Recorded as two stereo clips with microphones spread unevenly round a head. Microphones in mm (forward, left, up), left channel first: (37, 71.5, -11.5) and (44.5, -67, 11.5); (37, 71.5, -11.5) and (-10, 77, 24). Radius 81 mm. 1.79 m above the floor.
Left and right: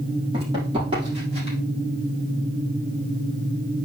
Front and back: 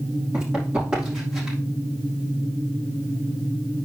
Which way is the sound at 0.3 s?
145° right.